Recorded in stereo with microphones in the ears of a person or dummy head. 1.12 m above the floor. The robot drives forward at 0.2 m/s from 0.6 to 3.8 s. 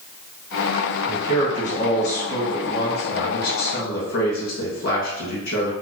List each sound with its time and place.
1.1 s a man speaking: 50° left (ahead or behind), 1.6 m; by 5.7 s 65° left (ahead or behind), 1.3 m